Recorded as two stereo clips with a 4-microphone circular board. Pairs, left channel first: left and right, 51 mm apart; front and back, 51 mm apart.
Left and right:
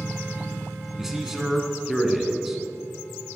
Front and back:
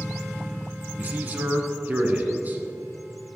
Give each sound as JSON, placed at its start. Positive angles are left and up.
{"t": 1.0, "sound": "a man speaking", "azimuth_deg": -170, "distance_m": 1.2}